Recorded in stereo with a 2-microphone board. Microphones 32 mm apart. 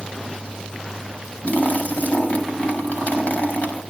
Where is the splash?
50° left (ahead or behind), 6 m.